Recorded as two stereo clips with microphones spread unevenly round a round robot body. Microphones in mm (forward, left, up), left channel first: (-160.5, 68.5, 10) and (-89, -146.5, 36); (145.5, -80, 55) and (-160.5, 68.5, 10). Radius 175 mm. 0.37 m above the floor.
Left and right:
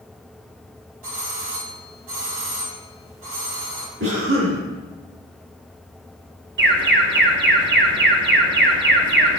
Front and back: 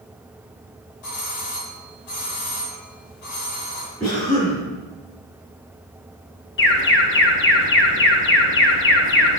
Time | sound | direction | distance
1.0 | a doorbell | 50° right | 2.5 m
4.0 | a cough | 95° right | 4.5 m
6.6 | an alarm | 75° right | 1.3 m